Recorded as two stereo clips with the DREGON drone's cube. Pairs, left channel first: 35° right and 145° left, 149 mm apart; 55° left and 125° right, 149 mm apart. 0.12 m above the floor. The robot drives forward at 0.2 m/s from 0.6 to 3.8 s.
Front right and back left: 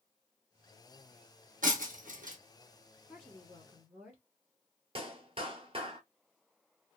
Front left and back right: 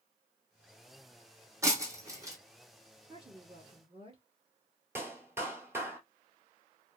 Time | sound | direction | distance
1.6 | breaking glass | 165° left | 1.2 m
3.1 | a woman speaking | 130° right | 1.3 m
5.0 | a clap | 170° left | 1.1 m